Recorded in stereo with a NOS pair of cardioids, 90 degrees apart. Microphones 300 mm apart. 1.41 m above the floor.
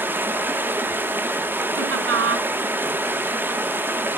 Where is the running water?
5° right, 1.2 m.